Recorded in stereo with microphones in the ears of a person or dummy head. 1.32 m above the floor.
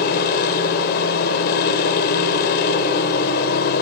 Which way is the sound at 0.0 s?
55° left (ahead or behind).